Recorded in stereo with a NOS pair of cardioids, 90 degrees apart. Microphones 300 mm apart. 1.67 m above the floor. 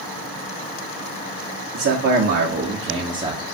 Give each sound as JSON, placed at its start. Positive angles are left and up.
{"t": 1.7, "sound": "a man speaking", "azimuth_deg": -50, "distance_m": 1.2}